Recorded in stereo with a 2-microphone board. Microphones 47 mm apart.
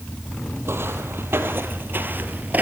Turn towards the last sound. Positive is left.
turn(degrees=-40)  # may be behind; listen again after turning